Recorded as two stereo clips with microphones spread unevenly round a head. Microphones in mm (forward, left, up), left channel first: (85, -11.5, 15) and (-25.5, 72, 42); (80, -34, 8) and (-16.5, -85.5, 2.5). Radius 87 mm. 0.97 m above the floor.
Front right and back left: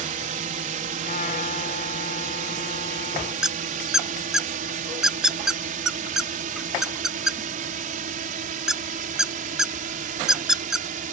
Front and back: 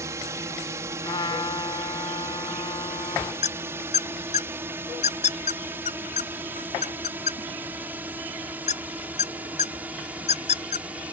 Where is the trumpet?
10° right.